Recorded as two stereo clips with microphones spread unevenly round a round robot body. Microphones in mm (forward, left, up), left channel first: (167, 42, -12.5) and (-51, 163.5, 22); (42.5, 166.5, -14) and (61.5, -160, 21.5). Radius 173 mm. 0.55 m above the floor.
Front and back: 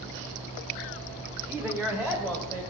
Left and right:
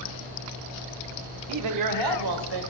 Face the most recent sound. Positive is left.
turn(degrees=-115)